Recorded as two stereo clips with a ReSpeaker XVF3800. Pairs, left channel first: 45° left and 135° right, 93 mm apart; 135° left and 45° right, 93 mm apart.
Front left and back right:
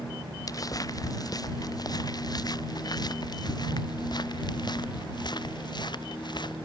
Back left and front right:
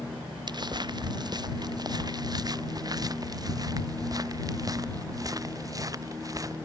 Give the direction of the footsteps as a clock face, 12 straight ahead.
12 o'clock.